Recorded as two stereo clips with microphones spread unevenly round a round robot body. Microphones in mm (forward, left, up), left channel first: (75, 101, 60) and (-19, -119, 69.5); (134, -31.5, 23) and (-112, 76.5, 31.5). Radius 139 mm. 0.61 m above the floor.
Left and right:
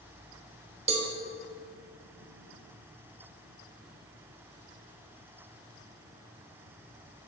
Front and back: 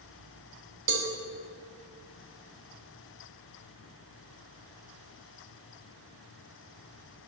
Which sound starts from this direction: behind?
A cowbell, at 0.9 s.